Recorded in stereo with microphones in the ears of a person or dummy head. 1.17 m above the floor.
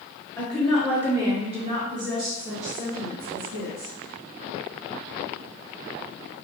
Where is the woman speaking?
10° left (ahead or behind), 0.9 m; by 3.9 s 65° right (ahead or behind), 1.6 m.